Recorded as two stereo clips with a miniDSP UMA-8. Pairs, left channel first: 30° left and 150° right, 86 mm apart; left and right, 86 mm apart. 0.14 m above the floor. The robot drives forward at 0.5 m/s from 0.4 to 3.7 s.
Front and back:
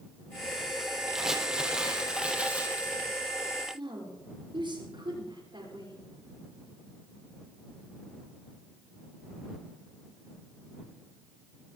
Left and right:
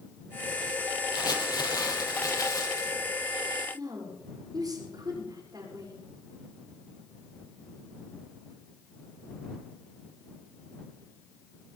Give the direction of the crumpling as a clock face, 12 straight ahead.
8 o'clock.